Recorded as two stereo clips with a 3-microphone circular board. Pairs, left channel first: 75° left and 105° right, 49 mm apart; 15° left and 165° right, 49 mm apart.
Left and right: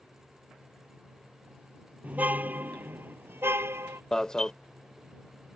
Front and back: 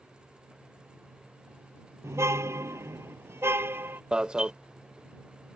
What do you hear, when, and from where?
2.0 s a car horn: 160° right; by 4.0 s 130° right
4.1 s an alarm: 140° left